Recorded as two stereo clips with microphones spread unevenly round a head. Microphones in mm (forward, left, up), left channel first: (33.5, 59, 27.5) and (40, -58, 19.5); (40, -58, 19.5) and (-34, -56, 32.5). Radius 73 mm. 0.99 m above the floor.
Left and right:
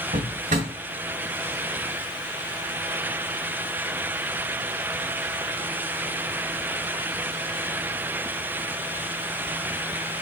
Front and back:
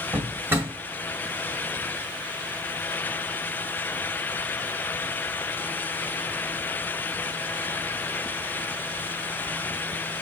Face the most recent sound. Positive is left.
turn(degrees=-125)